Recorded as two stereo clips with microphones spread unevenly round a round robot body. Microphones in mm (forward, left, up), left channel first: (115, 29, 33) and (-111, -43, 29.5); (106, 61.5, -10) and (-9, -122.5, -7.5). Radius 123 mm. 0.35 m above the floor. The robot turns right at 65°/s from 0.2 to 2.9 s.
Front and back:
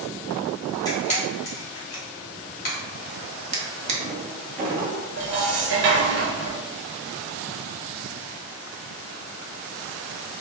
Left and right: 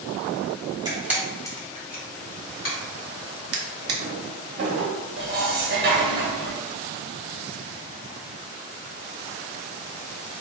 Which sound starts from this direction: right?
A drawer, at 3.5 s.